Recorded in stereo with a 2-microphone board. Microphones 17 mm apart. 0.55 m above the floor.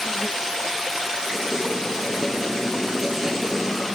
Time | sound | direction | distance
1.3 | writing | 5° right (ahead or behind) | 7 m